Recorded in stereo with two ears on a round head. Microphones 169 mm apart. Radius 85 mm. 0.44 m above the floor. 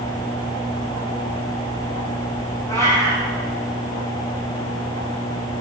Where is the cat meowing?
15° left (ahead or behind), 6.5 m.